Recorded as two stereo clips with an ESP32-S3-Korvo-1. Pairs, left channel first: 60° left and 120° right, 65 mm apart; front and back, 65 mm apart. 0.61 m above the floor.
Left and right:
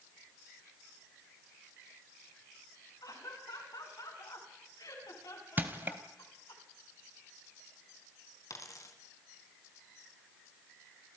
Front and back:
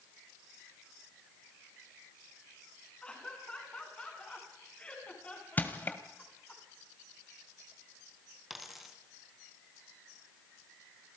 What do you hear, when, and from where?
3.0 s laughter: 75° left, 8 m; by 6.6 s 70° left, 6.5 m
5.6 s crushing: 65° right, 1.7 m
8.5 s a dropped coin: 95° left, 2.5 m